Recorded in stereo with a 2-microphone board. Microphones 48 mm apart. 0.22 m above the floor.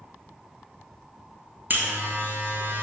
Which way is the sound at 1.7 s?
45° right (ahead or behind).